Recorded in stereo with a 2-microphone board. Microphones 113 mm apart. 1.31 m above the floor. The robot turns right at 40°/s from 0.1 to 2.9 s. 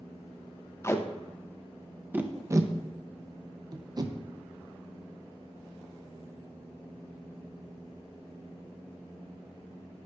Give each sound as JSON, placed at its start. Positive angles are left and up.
{"t": 0.8, "sound": "tape being pulled", "side_deg": 25, "distance_m": 0.6}